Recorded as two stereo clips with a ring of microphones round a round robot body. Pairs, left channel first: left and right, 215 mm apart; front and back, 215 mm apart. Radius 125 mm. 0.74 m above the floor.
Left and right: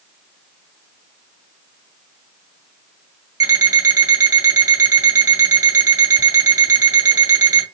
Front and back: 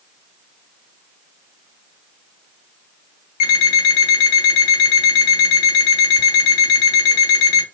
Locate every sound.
3.4 s an alarm clock: 15° right, 1.7 m